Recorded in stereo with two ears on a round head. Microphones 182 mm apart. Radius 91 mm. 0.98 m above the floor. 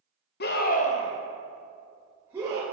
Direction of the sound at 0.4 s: 50° left (ahead or behind).